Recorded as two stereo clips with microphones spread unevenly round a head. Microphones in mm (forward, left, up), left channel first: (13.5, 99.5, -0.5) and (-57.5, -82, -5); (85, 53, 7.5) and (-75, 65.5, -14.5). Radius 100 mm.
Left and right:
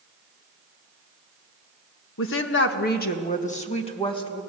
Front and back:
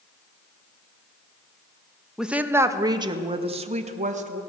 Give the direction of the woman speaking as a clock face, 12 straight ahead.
9 o'clock.